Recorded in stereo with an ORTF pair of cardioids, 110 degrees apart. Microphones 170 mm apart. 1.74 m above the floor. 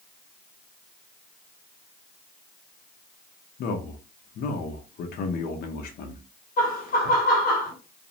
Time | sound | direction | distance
3.6 | a man speaking | 65° left | 0.8 m
6.6 | laughter | 60° left | 1.3 m